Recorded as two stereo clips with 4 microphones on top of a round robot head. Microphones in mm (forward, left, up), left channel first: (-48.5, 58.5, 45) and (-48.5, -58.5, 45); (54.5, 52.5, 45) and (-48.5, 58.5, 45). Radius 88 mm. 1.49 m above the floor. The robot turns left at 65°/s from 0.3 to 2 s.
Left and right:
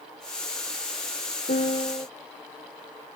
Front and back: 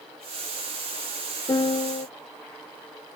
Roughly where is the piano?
Ahead left.